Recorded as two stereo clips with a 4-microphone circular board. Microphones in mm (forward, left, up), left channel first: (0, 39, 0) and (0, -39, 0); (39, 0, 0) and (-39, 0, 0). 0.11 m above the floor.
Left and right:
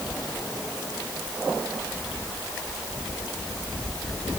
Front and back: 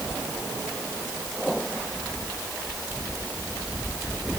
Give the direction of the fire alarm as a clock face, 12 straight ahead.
No fire alarm in this recording.